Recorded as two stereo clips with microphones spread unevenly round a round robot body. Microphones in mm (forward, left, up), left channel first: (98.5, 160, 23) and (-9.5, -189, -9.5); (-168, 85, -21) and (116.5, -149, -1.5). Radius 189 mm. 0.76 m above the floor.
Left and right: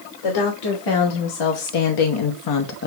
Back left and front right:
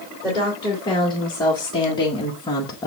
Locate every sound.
0.2 s a woman speaking: 60° left, 3 m; by 2.9 s 85° left, 0.8 m